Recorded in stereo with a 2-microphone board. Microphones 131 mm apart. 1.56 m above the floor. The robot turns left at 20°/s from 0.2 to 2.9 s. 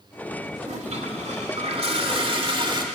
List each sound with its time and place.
0.6 s a toilet flushing: 90° right, 1.9 m; by 2.8 s 135° right, 1.9 m